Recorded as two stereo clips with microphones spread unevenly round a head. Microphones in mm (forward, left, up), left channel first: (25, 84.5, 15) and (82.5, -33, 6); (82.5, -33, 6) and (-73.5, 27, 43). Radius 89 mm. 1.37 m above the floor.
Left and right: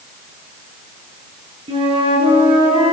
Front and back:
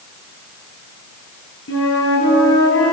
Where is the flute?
15° right, 8 m.